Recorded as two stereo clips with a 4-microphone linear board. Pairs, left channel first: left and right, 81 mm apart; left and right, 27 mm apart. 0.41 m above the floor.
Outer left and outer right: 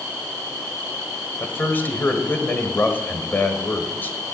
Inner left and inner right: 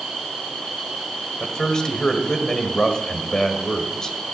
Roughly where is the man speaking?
Left.